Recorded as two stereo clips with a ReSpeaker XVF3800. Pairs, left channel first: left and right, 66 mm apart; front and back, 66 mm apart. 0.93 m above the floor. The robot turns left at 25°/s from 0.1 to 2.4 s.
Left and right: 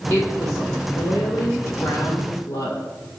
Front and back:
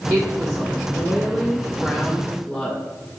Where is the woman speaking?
150° left, 1.9 m; by 2.8 s 90° left, 1.9 m.